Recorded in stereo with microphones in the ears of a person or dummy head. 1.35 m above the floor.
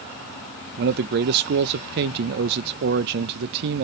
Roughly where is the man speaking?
Right.